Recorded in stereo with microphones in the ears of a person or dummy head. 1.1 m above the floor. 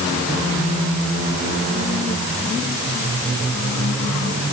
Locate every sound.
Only background noise.